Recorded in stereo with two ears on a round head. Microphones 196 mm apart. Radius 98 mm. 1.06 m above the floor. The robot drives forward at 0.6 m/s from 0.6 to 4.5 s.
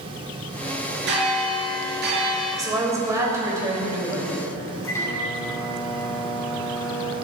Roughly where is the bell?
Right.